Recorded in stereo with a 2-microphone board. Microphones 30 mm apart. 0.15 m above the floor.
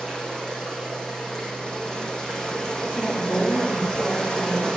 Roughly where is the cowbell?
I don't hear a cowbell.